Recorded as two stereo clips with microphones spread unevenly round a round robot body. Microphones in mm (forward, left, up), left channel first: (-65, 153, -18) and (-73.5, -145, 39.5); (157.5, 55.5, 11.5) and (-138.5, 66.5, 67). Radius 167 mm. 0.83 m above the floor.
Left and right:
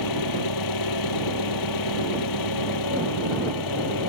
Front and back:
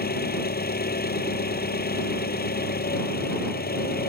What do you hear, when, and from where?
0.0 s an engine running: 60° left